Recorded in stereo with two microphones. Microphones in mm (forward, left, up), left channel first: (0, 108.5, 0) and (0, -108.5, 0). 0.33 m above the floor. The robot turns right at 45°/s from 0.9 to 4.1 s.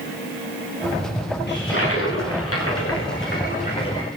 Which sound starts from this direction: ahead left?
A toilet flushing, at 1.5 s.